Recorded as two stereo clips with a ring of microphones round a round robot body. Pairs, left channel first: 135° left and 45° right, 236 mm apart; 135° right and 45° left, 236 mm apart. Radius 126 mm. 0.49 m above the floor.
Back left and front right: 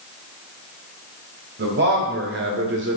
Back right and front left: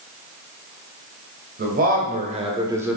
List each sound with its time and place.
1.6 s a man speaking: straight ahead, 3 m; by 3.0 s 40° right, 1.5 m